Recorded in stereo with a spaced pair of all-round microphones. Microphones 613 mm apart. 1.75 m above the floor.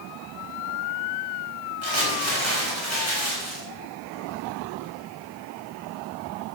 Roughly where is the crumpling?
Right.